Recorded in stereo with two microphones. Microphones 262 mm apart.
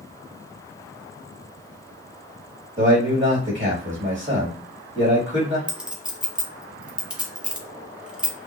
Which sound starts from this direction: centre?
A clink, at 5.7 s.